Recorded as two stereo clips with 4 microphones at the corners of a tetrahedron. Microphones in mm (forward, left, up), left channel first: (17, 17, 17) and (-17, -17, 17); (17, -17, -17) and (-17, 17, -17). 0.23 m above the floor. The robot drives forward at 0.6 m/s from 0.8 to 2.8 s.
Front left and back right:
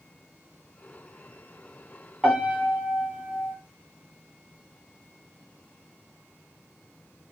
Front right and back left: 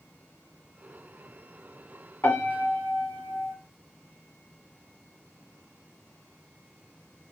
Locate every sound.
2.2 s a piano: 55° right, 1.6 m; by 3.5 s 70° right, 1.5 m